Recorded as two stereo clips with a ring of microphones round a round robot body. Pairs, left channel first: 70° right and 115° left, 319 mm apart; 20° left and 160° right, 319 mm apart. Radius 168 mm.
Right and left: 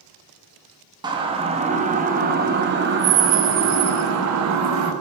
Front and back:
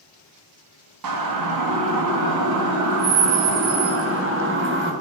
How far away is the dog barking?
I don't hear a dog barking.